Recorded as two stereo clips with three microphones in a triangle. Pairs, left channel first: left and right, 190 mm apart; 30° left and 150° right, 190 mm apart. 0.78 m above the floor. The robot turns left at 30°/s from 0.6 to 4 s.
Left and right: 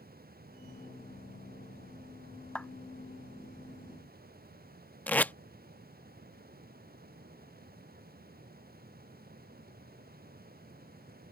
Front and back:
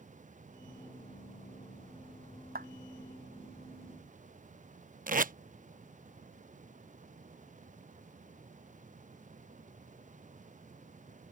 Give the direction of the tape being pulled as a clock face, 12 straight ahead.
6 o'clock.